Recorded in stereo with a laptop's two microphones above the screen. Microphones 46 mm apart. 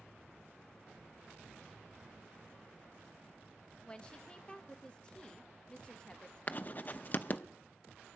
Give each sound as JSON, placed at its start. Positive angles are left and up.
{"t": 3.9, "sound": "a woman speaking", "side_deg": 20, "distance_m": 0.8}
{"t": 6.5, "sound": "writing", "side_deg": 40, "distance_m": 0.7}